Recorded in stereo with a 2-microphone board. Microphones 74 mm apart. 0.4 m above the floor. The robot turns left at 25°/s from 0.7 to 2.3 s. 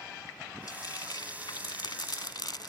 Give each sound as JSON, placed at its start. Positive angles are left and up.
{"t": 0.7, "sound": "frying", "side_deg": 65}